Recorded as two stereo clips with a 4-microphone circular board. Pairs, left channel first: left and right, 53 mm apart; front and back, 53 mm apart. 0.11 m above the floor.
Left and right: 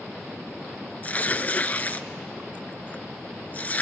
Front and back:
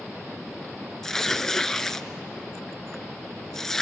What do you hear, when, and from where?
1.0 s tearing paper: 75° left, 0.6 m